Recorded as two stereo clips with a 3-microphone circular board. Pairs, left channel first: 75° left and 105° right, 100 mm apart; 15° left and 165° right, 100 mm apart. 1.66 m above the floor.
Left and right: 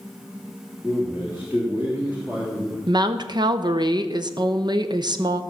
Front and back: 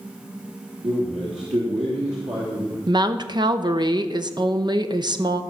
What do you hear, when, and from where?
0.8 s a man speaking: 175° right, 3 m
2.9 s a woman speaking: 135° right, 0.8 m